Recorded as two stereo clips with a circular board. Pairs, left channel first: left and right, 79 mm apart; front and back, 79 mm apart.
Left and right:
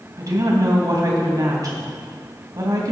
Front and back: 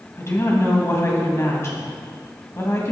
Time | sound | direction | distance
0.2 | a woman speaking | 50° right | 3 m